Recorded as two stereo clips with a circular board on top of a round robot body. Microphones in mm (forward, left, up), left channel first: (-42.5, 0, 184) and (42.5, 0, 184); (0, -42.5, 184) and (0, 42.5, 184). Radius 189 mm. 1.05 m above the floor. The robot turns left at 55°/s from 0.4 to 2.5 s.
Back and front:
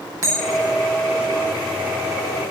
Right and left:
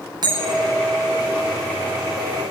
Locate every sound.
0.2 s a bell: 50° left, 10 m; by 0.8 s 30° left, 10 m